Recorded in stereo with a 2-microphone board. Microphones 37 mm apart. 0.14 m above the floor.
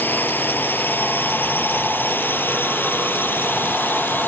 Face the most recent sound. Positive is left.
turn(degrees=65)  # may be behind; listen again after turning